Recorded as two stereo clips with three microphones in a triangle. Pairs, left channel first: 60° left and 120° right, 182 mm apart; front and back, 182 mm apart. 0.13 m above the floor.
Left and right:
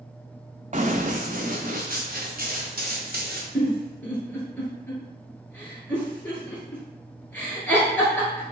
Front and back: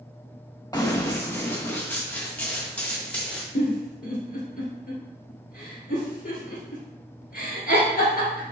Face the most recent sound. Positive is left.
turn(degrees=-20)